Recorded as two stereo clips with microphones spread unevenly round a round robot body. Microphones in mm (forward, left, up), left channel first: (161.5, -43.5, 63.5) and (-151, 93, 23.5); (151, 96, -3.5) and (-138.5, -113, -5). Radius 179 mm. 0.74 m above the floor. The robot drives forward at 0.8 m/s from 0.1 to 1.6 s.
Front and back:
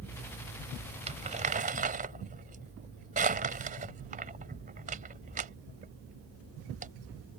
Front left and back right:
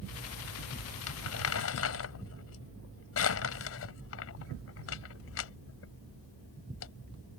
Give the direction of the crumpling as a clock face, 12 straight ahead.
9 o'clock.